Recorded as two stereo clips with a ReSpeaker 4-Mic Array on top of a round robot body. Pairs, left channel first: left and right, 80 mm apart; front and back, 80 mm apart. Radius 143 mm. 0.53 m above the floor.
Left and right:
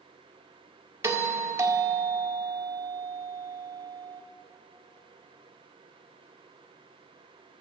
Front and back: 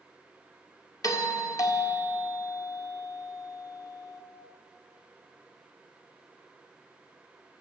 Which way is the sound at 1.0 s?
40° right.